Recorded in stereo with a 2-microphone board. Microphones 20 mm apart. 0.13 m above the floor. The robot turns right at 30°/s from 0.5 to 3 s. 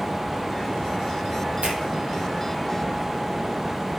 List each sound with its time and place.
1.6 s a finger snap: 70° right (ahead or behind), 3 m; by 1.8 s 65° right (ahead or behind), 3 m